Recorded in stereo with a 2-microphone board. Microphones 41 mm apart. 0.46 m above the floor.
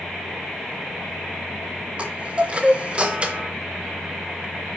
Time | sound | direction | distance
2.0 | a chime | 25° right (ahead or behind) | 0.9 m